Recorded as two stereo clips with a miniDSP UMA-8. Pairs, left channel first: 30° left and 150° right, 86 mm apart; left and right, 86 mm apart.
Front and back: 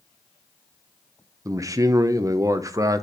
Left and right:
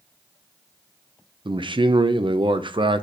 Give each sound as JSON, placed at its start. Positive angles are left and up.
{"t": 1.4, "sound": "a man speaking", "azimuth_deg": -100, "distance_m": 0.8}